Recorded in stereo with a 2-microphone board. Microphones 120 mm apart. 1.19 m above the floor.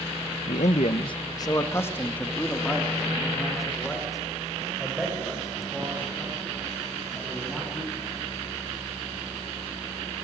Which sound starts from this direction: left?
A man speaking, at 0.5 s.